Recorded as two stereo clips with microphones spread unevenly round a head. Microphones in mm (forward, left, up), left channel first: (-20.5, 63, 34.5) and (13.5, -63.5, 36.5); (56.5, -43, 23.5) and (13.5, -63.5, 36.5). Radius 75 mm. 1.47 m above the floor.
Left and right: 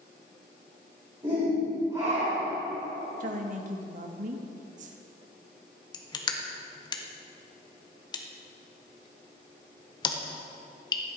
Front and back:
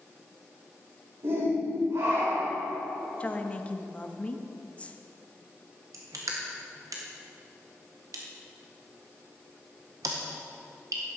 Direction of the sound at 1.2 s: 140° right.